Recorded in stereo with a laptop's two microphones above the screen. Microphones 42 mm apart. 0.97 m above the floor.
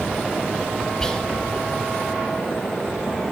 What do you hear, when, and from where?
1.0 s whispering: 15° left (ahead or behind), 1.8 m